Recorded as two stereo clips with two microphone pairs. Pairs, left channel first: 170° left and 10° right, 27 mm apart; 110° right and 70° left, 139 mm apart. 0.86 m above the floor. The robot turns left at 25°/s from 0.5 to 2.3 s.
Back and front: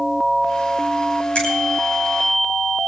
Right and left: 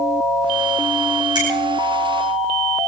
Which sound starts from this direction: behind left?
A finger snap, at 1.4 s.